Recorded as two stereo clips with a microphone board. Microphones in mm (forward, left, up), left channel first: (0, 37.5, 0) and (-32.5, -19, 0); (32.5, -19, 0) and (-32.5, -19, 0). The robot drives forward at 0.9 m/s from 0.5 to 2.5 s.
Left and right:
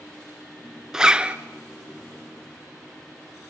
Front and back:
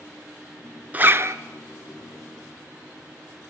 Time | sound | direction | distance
0.9 | a zipper | 170° left | 0.7 m